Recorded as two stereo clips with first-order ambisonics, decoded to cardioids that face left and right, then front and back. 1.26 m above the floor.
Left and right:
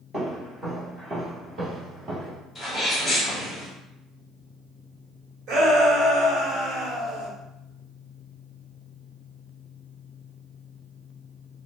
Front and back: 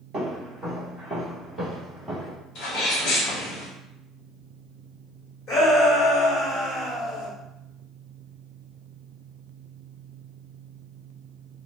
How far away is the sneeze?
About 1.0 m.